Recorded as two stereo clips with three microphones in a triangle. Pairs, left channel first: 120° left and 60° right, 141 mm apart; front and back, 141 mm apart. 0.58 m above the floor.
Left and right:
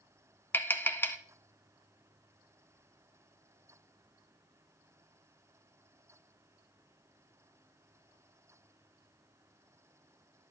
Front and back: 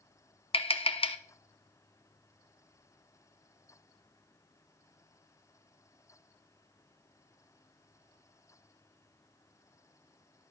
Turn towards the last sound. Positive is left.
turn(degrees=45)